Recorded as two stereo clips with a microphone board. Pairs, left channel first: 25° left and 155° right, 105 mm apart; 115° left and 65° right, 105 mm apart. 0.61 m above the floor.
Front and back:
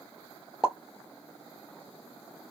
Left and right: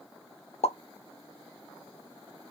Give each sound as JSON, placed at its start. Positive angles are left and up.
{"t": 0.6, "sound": "a pop", "azimuth_deg": 120, "distance_m": 0.6}